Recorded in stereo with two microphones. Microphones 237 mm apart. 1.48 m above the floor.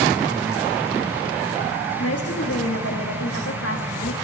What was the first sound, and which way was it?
A woman speaking, 75° left (ahead or behind).